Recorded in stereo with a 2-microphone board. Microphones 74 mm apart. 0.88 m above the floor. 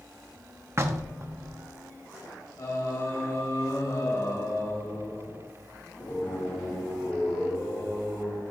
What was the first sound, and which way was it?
Knocking, 35° right (ahead or behind).